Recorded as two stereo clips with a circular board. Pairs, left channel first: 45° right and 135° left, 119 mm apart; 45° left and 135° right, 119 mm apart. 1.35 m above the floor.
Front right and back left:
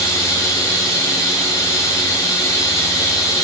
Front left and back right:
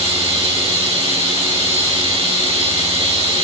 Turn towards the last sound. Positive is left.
turn(degrees=-105)